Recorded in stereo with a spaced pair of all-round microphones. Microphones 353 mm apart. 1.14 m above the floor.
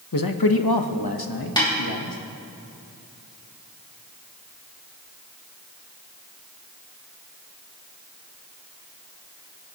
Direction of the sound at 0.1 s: 60° left (ahead or behind).